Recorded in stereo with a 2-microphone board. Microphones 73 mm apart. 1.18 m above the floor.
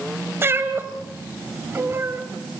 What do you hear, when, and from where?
0.4 s a cat meowing: 30° right (ahead or behind), 1.9 m